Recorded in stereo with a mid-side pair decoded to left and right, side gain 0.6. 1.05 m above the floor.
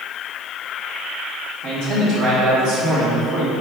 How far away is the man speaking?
About 1.7 m.